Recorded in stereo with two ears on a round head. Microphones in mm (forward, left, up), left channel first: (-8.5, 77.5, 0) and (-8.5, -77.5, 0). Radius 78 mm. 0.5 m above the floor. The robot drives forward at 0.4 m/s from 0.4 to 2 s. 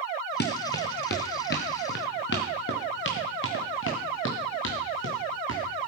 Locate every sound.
0.4 s running footsteps: 65° left (ahead or behind), 2.5 m; by 5.9 s 80° left, 4 m